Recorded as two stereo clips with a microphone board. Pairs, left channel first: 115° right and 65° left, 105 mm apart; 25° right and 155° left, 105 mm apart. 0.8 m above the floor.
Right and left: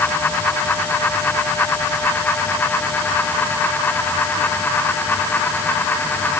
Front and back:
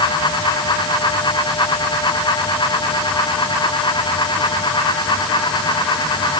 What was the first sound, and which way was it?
Only background noise.